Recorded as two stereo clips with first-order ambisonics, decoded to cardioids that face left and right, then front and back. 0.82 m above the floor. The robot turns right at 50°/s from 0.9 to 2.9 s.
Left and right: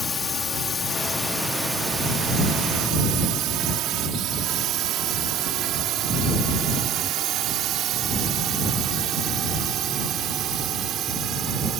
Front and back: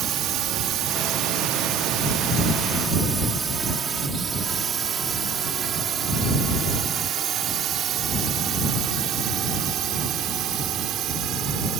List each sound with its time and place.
0.0 s a drone: 160° left; by 11.8 s 140° right